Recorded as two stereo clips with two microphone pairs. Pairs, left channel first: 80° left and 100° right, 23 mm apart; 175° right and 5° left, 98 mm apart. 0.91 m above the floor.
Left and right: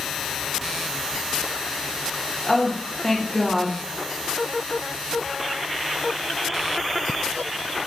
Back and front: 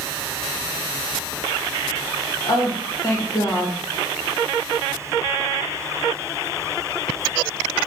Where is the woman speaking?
155° left, 1.2 m.